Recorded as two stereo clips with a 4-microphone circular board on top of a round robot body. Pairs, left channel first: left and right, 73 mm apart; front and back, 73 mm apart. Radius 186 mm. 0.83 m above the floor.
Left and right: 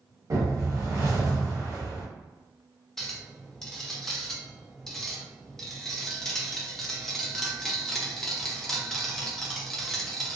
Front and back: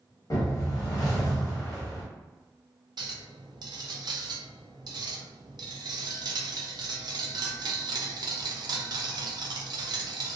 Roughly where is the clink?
Behind.